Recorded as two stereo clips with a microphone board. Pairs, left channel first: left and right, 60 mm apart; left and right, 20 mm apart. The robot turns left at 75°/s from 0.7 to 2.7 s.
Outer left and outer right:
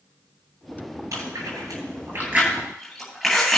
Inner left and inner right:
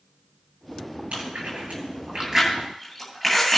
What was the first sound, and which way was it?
Chewing, 60° right (ahead or behind).